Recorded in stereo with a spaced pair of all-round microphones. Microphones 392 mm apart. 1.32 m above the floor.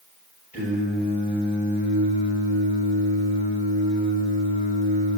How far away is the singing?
About 8 m.